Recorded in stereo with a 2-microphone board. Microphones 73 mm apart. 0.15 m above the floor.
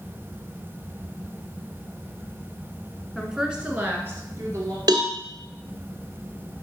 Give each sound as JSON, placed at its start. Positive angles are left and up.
{"t": 3.1, "sound": "a woman speaking", "side_deg": 0, "distance_m": 1.2}
{"t": 4.9, "sound": "a cowbell", "side_deg": -65, "distance_m": 1.1}